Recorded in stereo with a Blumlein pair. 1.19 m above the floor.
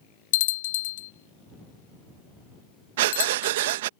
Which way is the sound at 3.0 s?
55° right.